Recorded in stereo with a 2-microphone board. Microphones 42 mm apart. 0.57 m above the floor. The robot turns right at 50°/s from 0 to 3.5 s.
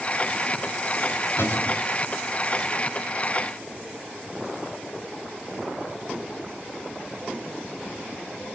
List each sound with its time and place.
1.4 s a cupboard door: 65° left (ahead or behind), 2.5 m; by 1.8 s 55° left (ahead or behind), 2.5 m